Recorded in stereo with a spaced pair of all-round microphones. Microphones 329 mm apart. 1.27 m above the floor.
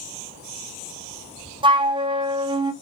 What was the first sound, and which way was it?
A flute, 15° right (ahead or behind).